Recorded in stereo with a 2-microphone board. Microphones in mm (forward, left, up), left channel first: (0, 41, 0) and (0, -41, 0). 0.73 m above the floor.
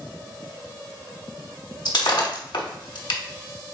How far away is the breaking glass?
About 0.9 m.